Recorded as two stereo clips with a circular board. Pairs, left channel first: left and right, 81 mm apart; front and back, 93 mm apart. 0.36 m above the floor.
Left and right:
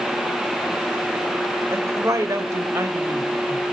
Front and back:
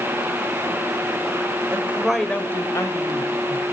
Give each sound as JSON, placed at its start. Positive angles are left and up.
{"t": 1.7, "sound": "a woman speaking", "azimuth_deg": -125, "distance_m": 1.2}